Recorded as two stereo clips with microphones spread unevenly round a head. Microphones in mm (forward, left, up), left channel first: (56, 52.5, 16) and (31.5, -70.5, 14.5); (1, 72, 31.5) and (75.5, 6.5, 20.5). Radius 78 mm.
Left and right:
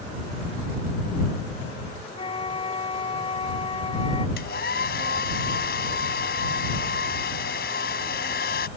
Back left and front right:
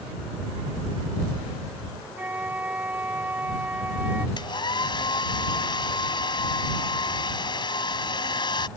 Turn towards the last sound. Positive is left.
turn(degrees=100)